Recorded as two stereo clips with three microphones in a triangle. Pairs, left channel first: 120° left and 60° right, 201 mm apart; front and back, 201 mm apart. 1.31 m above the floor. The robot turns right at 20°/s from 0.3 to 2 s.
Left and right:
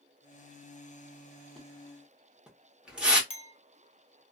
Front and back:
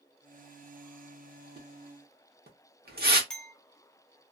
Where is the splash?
155° right, 0.8 m; by 3.2 s 145° right, 0.8 m.